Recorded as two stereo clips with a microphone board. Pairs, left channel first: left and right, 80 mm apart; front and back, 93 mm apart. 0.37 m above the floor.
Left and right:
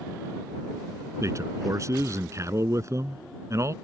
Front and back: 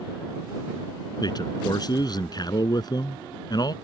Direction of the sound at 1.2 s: 40° right.